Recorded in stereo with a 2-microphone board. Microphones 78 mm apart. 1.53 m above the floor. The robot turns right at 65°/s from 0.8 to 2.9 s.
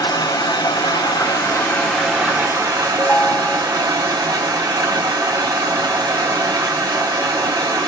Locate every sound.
0.0 s running water: 100° left, 3 m; by 7.9 s 125° right, 3 m
3.0 s a ringtone: 15° left (ahead or behind), 0.9 m